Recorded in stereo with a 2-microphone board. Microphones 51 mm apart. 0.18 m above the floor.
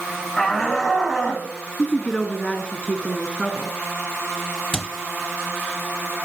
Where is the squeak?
15° left (ahead or behind), 1.1 m.